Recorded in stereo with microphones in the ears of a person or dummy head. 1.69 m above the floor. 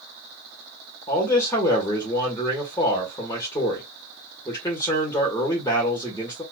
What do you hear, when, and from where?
1.1 s a man speaking: 20° left (ahead or behind), 1.0 m